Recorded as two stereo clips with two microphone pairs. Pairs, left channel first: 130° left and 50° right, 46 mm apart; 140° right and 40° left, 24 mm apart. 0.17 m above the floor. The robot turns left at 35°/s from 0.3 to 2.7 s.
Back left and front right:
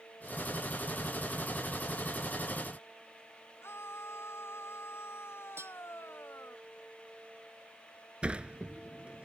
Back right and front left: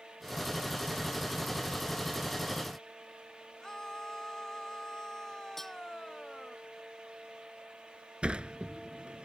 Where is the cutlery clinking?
65° right.